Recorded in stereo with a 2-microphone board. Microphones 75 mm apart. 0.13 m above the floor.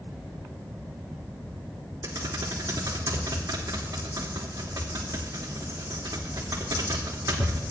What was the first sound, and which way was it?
Typing on a keyboard, 45° right (ahead or behind).